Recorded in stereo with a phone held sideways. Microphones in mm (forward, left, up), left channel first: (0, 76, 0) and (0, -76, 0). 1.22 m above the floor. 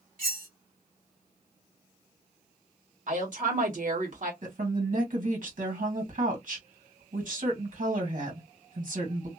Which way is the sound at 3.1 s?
60° right (ahead or behind).